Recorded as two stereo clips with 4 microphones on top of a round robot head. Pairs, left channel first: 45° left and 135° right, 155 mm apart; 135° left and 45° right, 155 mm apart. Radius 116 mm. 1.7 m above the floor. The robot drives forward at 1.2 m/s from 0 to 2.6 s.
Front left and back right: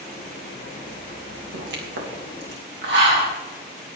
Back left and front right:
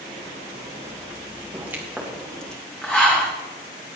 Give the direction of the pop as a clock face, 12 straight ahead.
4 o'clock.